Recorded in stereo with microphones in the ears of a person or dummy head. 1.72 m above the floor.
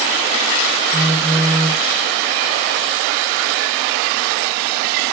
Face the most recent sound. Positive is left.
turn(degrees=-5)  # may be behind; listen again after turning